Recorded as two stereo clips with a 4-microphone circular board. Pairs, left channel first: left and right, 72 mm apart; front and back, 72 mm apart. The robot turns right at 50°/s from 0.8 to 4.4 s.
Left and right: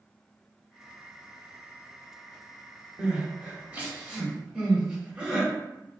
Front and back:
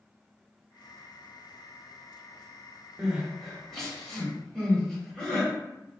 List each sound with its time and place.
3.0 s crying: 120° right, 1.2 m; by 5.5 s 50° right, 1.2 m